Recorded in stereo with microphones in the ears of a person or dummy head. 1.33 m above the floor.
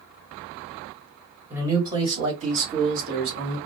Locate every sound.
1.5 s a man speaking: 15° right (ahead or behind), 1.2 m; by 3.6 s 60° right (ahead or behind), 1.6 m